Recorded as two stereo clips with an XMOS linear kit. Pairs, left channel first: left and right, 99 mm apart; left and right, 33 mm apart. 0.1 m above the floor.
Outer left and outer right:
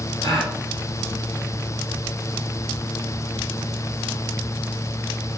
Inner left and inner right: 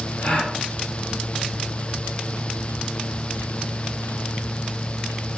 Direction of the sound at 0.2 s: 40° left (ahead or behind).